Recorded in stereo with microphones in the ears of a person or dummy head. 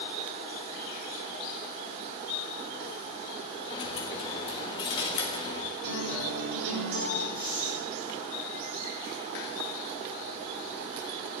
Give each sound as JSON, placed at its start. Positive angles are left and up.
{"t": 3.7, "sound": "a dropped coin", "side_deg": 25, "distance_m": 1.3}
{"t": 5.8, "sound": "a guitar", "side_deg": -55, "distance_m": 5.0}
{"t": 7.3, "sound": "breathing", "side_deg": -20, "distance_m": 3.5}